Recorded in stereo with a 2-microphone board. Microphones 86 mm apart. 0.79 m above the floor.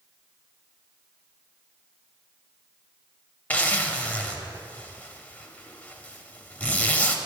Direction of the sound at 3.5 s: 20° left (ahead or behind).